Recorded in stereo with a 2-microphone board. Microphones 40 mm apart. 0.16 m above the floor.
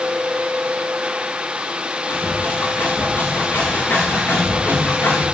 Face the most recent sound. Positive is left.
turn(degrees=60)  # may be behind; listen again after turning